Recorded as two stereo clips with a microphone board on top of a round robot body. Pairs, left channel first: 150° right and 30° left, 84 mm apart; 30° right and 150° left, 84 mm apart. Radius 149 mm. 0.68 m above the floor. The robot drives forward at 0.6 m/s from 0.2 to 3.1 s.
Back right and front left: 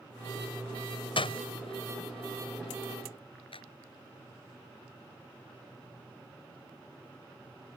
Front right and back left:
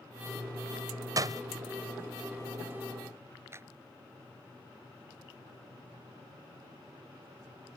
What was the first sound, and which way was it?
A door slam, 160° right.